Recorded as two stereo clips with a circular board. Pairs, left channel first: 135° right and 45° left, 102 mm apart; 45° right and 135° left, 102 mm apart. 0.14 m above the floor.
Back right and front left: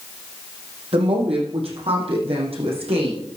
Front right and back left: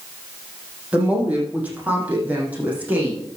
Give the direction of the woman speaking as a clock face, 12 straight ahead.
10 o'clock.